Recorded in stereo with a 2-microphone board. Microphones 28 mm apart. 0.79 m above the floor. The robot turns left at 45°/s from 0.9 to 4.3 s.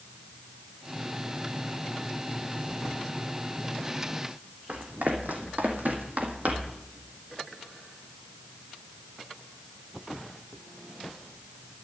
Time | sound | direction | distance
4.7 | running footsteps | 70° right (ahead or behind) | 2.5 m